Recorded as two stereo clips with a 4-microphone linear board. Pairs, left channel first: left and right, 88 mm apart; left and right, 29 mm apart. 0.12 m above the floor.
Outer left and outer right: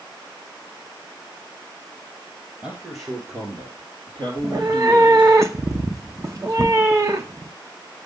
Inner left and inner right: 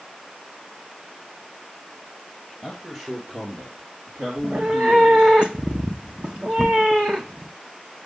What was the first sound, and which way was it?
A man speaking, 25° right (ahead or behind).